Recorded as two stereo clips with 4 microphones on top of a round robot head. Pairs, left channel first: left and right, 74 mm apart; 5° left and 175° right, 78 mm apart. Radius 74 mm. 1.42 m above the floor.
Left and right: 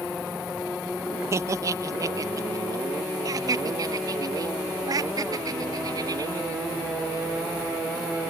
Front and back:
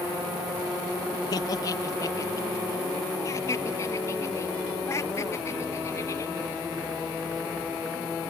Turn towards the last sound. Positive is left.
turn(degrees=-55)